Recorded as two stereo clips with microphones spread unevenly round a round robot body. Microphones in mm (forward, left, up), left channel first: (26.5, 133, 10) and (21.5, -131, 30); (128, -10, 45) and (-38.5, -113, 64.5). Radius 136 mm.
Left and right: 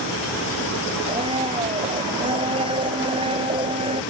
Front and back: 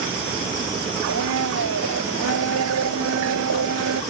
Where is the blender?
165° right.